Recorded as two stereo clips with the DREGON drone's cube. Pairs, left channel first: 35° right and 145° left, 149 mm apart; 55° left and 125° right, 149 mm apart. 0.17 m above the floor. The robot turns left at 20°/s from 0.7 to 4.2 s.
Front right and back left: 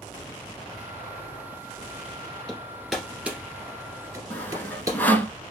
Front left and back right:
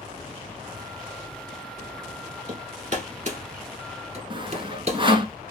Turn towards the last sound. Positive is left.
turn(degrees=-105)